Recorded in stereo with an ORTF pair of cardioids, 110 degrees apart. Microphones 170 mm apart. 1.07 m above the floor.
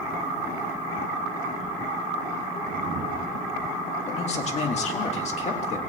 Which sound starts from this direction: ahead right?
A whoosh, at 2.6 s.